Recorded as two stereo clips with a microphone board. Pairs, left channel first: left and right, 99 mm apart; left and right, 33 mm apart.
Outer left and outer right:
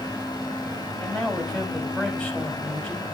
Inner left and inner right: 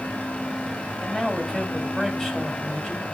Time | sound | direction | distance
1.0 | a man speaking | 10° left (ahead or behind) | 5 m